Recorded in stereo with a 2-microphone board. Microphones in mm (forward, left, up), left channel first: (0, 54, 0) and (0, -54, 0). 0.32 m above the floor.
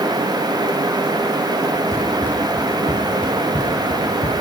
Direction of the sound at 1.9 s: 10° left (ahead or behind).